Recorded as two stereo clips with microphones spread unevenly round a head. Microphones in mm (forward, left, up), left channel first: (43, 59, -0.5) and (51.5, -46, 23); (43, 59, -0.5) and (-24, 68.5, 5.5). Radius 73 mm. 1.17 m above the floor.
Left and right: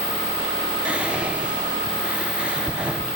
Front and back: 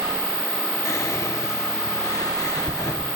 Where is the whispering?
5° left, 0.8 m.